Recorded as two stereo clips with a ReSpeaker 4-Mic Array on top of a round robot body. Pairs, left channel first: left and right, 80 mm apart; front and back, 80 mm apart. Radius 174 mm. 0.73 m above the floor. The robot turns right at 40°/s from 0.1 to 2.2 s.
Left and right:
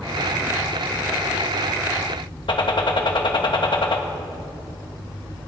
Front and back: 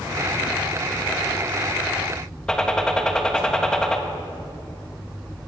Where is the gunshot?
80° left, 1.6 m.